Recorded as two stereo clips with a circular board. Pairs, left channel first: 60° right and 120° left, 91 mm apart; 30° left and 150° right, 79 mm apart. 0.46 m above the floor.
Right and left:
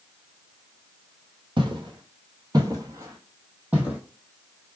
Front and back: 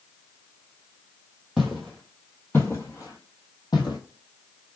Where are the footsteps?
120° left, 1.0 m; by 4.0 s 45° left, 1.2 m.